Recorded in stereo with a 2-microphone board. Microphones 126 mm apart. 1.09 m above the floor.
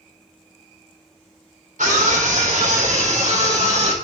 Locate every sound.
1.8 s a scream: 85° right, 4 m; by 3.9 s 60° right (ahead or behind), 5 m